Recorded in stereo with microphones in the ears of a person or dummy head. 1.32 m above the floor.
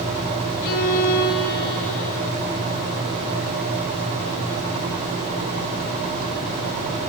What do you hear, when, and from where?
0.6 s a violin: 60° left (ahead or behind), 3.5 m